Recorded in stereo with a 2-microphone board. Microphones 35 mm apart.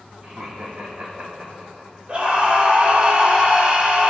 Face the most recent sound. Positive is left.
turn(degrees=-35)  # may be behind; listen again after turning